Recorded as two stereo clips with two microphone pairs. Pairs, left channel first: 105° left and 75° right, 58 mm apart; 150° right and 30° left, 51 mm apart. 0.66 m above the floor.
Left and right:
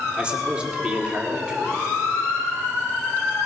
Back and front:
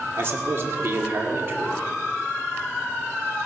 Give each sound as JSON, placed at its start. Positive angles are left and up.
{"t": 0.2, "sound": "a man speaking", "azimuth_deg": 0, "distance_m": 1.8}